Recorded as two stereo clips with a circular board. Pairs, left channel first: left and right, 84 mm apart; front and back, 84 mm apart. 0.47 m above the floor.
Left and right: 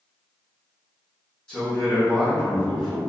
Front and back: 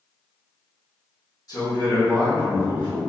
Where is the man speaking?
10° left, 1.0 m.